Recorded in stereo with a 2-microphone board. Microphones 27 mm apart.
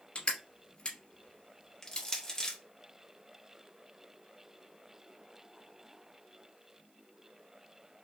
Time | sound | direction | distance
0.1 | crushing | 45° left (ahead or behind) | 1.3 m
1.8 | crushing | 25° left (ahead or behind) | 0.7 m